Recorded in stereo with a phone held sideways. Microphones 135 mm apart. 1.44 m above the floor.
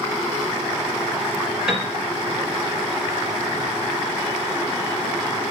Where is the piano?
5° right (ahead or behind), 5.5 m.